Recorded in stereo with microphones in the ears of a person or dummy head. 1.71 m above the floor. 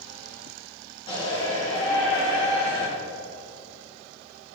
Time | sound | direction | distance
1.1 | a shout | 25° left (ahead or behind) | 4 m